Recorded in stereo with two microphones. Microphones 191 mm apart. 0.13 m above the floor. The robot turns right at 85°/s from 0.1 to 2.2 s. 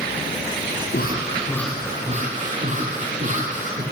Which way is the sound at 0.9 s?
115° left.